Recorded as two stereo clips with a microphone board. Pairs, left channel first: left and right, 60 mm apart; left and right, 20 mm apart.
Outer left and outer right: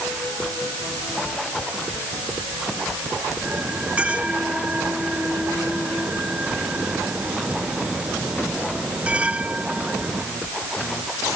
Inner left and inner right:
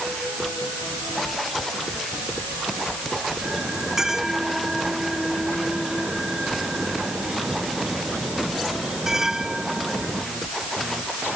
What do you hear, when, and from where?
3.4 s a bell: 20° right (ahead or behind)